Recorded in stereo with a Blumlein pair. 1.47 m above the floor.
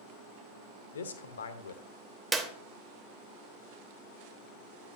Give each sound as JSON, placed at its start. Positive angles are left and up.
{"t": 0.9, "sound": "a man speaking", "azimuth_deg": 65, "distance_m": 0.7}
{"t": 2.3, "sound": "a clap", "azimuth_deg": -10, "distance_m": 0.9}